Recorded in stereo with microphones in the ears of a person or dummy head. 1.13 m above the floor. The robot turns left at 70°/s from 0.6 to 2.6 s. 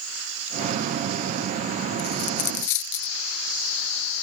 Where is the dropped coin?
50° left (ahead or behind); by 3.1 s 65° left (ahead or behind).